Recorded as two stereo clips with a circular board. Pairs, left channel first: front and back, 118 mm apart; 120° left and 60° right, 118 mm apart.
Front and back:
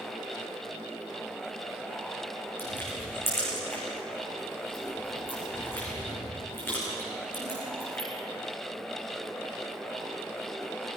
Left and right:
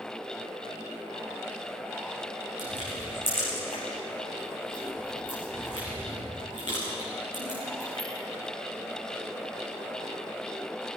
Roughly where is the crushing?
Left.